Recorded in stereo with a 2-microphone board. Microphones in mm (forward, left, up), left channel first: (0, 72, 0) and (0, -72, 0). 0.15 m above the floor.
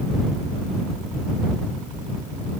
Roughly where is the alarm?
I don't hear an alarm.